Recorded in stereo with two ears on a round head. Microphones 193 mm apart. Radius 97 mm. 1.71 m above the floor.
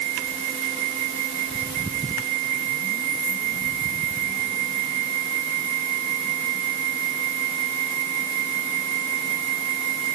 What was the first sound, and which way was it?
Only background noise.